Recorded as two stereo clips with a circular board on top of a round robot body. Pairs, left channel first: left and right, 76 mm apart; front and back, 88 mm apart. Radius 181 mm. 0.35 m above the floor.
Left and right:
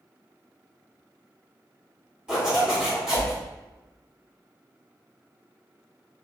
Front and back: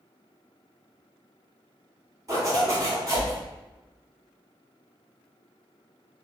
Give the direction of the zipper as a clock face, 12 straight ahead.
5 o'clock.